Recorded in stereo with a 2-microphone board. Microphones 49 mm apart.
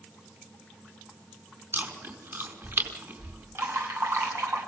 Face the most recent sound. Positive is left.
turn(degrees=-60)  # may be behind; listen again after turning